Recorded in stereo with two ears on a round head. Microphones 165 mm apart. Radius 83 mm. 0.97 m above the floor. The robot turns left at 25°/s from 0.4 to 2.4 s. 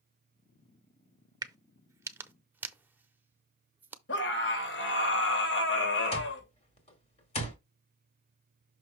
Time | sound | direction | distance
1.4 | a crack | 20° right (ahead or behind) | 0.7 m
4.1 | a scream | 75° left (ahead or behind) | 3 m
6.1 | an alarm clock | 40° left (ahead or behind) | 2 m